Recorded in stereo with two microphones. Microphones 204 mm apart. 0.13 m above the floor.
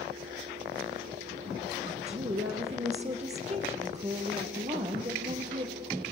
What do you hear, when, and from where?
1.8 s a woman speaking: 30° right (ahead or behind), 4 m